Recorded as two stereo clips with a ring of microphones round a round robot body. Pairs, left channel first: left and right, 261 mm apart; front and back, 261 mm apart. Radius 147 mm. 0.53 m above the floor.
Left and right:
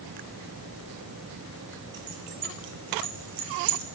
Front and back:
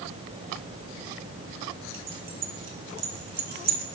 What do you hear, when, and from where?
1.9 s keys jangling: 140° right, 4 m; by 3.8 s 125° right, 1.9 m